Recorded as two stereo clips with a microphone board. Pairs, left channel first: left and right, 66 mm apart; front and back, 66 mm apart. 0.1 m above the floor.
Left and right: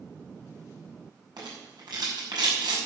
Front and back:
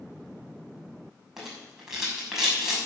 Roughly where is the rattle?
Right.